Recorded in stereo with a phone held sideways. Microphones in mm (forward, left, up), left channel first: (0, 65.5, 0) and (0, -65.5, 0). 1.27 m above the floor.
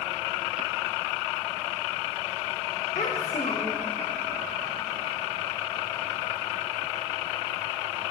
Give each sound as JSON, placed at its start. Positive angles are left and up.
{"t": 3.0, "sound": "a child speaking", "side_deg": 75, "distance_m": 0.8}